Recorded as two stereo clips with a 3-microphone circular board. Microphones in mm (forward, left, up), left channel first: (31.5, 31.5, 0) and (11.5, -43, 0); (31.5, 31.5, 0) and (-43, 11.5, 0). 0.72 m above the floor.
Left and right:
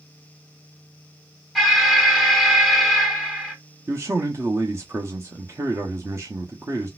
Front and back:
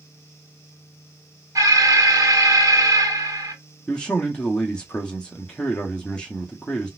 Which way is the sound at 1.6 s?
160° left.